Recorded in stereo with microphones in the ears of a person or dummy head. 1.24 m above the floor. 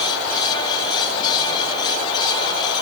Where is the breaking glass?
I don't hear breaking glass.